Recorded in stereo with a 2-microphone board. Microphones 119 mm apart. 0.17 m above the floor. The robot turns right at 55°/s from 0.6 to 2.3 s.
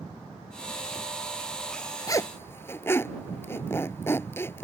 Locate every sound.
2.1 s a zipper: 30° left (ahead or behind); by 4.7 s 20° left (ahead or behind)